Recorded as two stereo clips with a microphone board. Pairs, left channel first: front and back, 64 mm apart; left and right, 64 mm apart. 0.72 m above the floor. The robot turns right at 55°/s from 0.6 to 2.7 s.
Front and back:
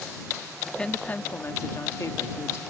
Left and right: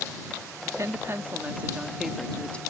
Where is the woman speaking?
80° right; by 2.6 s 30° left.